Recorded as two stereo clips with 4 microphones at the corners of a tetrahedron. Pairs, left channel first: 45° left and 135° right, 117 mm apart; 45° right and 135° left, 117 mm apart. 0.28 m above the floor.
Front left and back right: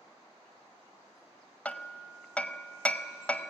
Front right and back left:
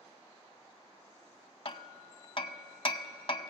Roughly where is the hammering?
Ahead right.